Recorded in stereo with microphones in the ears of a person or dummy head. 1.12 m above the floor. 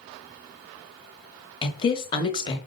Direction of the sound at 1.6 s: 25° left (ahead or behind).